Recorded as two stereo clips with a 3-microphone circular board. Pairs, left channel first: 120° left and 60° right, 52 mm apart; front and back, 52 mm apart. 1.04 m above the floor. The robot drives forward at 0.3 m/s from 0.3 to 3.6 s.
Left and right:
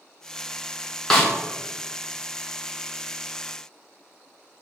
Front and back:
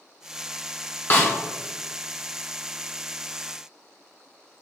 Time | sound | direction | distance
1.1 | a snare drum | 35° left | 0.9 m